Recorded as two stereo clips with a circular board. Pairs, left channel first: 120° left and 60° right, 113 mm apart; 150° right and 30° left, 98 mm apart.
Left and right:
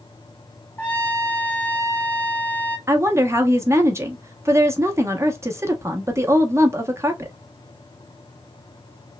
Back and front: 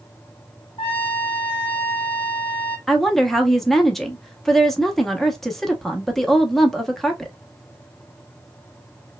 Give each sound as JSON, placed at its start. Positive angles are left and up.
{"t": 0.8, "sound": "a trumpet", "azimuth_deg": -170, "distance_m": 1.0}
{"t": 2.9, "sound": "a woman speaking", "azimuth_deg": -65, "distance_m": 0.7}